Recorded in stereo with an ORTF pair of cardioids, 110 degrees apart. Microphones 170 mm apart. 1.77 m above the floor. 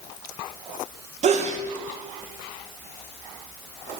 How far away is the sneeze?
About 2 m.